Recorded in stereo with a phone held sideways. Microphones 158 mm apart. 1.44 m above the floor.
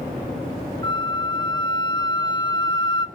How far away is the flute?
About 0.8 m.